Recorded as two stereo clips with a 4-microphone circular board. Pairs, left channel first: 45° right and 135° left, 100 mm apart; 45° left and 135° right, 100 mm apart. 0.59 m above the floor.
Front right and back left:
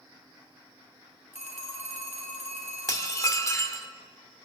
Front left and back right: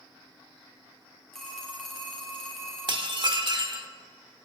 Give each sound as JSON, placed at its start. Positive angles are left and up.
{"t": 1.3, "sound": "a phone ringing", "azimuth_deg": -40, "distance_m": 2.5}
{"t": 2.9, "sound": "dishes clattering", "azimuth_deg": -100, "distance_m": 0.9}